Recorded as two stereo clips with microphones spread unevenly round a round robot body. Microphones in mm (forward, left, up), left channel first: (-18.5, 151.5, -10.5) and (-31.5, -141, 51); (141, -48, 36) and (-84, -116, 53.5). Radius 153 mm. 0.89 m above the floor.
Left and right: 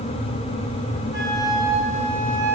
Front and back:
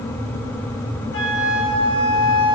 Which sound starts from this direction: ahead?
A flute, at 1.1 s.